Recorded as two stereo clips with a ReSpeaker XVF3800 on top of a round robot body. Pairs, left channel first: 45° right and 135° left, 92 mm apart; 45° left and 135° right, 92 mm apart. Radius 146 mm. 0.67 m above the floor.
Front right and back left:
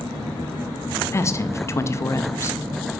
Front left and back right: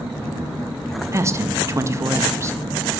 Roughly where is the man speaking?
Right.